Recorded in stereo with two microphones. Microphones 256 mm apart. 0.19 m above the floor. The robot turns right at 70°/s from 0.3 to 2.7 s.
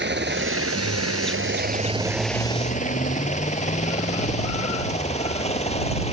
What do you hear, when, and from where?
0.0 s a helicopter: 45° right (ahead or behind); by 6.1 s 25° left (ahead or behind)